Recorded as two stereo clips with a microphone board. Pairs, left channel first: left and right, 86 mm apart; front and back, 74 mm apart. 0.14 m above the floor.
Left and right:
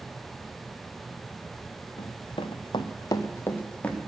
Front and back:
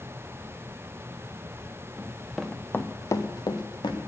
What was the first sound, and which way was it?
Running footsteps, 105° left.